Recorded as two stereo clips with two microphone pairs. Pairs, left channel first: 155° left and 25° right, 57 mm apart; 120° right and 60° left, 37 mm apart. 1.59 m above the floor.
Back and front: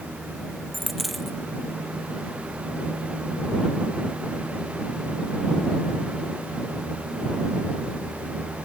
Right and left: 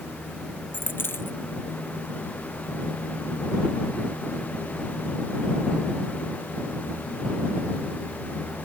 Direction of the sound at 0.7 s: 120° right.